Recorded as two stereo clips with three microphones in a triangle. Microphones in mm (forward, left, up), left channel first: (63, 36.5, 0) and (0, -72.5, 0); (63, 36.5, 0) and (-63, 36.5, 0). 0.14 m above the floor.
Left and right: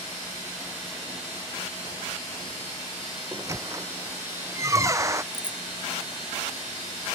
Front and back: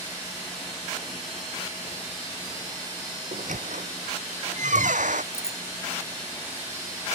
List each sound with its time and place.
3.3 s a squeak: 175° left
5.3 s a bicycle bell: 110° left